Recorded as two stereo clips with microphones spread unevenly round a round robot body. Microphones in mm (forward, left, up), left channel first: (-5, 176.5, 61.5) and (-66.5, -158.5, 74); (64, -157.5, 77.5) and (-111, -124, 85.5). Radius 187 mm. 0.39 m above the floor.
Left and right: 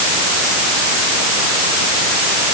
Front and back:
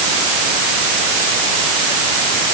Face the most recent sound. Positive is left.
No sound to turn to.